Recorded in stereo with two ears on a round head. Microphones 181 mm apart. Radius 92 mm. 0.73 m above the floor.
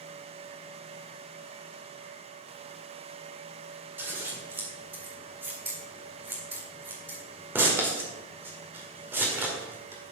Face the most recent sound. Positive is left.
turn(degrees=-10)  # may be behind; listen again after turning